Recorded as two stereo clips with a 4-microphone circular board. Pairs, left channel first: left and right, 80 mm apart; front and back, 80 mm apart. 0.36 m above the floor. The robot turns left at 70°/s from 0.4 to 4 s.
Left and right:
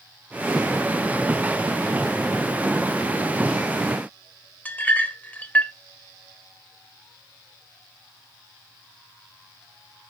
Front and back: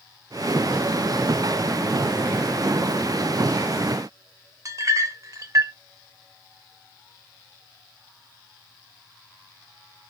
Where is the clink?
150° left, 0.5 m.